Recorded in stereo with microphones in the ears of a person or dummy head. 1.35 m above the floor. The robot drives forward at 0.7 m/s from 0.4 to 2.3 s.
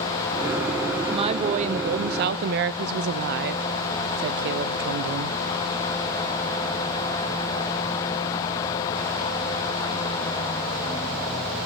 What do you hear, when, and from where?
1.0 s a woman speaking: 30° right (ahead or behind), 1.2 m; by 5.4 s 55° right (ahead or behind), 0.7 m